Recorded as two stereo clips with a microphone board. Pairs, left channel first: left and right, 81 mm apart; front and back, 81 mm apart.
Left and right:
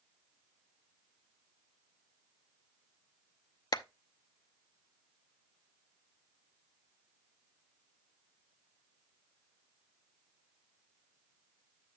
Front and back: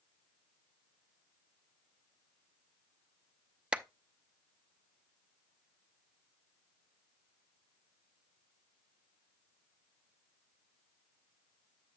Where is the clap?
105° left, 0.5 m.